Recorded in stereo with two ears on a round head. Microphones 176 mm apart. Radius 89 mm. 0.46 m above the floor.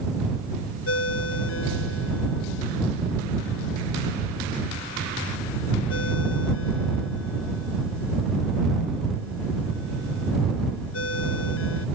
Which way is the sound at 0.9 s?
75° left (ahead or behind).